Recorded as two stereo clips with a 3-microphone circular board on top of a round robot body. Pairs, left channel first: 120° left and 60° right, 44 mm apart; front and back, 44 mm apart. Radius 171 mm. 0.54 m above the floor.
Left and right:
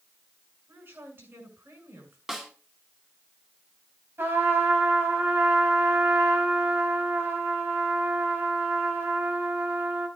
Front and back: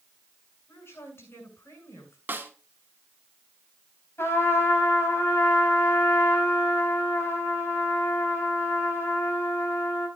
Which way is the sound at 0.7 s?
25° right.